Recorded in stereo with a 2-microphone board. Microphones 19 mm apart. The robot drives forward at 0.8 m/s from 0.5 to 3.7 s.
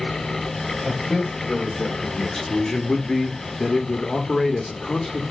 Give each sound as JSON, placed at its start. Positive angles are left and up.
{"t": 0.8, "sound": "a man speaking", "side_deg": 10, "distance_m": 2.0}